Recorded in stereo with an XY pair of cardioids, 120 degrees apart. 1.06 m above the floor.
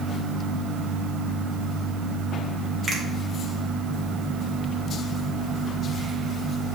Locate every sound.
2.9 s a finger snap: 30° right, 2 m